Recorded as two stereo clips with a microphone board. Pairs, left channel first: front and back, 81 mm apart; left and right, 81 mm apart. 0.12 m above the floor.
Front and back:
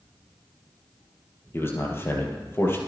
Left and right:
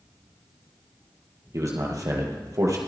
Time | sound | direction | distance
1.5 | a man speaking | 55° right | 2.5 m